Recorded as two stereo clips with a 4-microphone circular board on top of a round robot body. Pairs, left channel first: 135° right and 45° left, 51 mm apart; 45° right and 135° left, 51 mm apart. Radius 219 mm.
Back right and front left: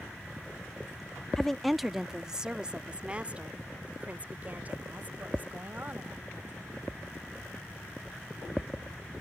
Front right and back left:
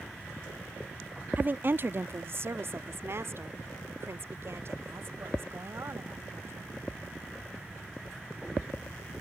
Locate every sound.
1.4 s a woman speaking: 150° left; by 6.7 s 100° left